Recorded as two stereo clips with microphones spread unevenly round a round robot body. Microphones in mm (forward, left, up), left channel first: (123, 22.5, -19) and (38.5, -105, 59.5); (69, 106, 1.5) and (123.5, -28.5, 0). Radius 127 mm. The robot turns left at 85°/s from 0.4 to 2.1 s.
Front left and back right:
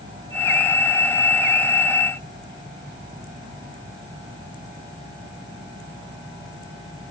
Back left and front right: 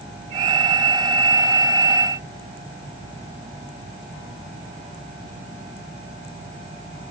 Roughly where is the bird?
I don't hear a bird.